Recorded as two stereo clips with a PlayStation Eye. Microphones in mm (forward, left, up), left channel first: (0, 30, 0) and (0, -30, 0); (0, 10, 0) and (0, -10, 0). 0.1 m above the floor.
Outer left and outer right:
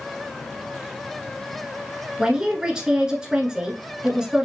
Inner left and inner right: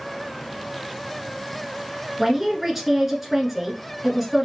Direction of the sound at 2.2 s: 15° right (ahead or behind).